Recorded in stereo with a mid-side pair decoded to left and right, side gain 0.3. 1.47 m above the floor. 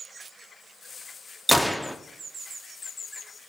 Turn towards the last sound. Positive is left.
turn(degrees=5)